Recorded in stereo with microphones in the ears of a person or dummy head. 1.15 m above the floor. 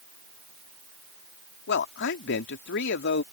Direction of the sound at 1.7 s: 55° left (ahead or behind).